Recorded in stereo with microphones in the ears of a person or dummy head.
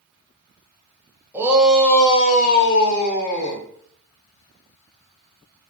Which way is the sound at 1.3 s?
10° right (ahead or behind).